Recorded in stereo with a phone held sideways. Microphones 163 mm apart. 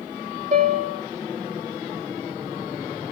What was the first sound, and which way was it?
A piano, 50° right (ahead or behind).